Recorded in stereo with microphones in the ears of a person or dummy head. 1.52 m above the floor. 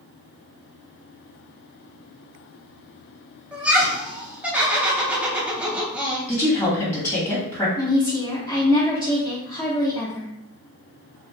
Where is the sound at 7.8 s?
20° left (ahead or behind), 0.7 m.